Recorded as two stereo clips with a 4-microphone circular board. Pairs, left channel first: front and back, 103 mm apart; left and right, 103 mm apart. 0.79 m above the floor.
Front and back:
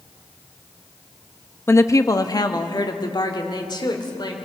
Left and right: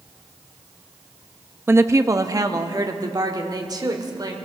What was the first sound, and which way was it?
A woman speaking, 45° right.